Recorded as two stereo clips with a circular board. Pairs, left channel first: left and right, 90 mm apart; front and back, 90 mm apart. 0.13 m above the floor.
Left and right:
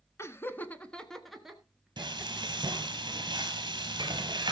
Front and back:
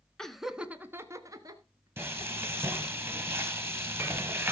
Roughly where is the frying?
Behind right.